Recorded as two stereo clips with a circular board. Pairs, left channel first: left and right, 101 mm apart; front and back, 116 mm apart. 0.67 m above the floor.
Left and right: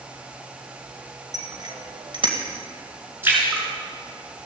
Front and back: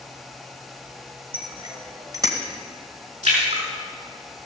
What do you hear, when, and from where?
1.3 s a bicycle bell: 140° right, 2.5 m; by 2.4 s 120° right, 2.5 m
3.2 s a splash: 160° right, 5.5 m